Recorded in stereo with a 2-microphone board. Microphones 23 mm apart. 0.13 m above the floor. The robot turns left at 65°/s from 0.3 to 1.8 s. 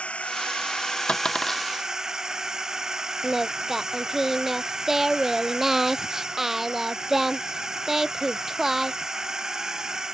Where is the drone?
70° left; by 10.1 s 25° right.